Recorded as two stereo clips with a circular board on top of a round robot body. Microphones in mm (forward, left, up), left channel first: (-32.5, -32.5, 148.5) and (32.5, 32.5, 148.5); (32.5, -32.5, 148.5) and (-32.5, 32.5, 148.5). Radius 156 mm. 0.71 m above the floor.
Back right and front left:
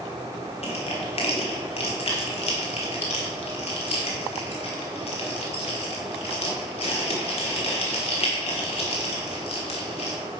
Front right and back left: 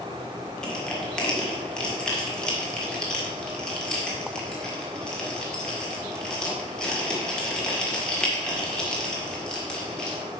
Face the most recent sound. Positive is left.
turn(degrees=-125)